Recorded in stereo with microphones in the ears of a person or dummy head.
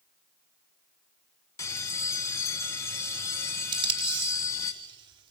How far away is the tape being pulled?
About 4 m.